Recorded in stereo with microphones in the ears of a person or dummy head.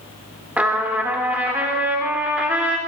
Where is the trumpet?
10° right (ahead or behind), 3 m.